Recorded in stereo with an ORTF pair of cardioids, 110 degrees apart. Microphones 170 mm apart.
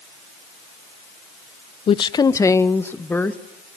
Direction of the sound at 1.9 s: 35° left.